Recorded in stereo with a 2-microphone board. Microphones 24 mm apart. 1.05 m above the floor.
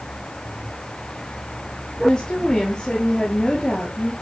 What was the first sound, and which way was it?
A woman speaking, 25° left (ahead or behind).